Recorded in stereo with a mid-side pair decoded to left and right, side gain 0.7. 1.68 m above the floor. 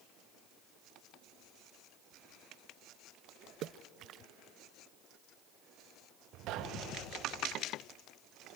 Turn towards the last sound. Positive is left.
turn(degrees=-60)